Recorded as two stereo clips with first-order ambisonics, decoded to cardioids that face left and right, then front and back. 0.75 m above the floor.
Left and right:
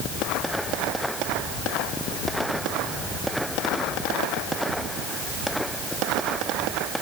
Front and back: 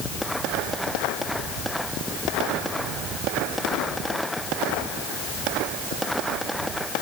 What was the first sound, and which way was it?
Only background noise.